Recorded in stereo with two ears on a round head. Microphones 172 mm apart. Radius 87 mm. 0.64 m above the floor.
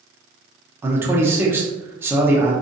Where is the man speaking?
10° right (ahead or behind), 0.8 m.